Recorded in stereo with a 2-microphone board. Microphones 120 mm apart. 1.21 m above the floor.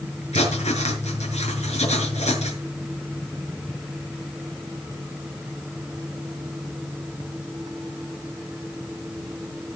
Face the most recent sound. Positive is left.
turn(degrees=65)  # may be behind; listen again after turning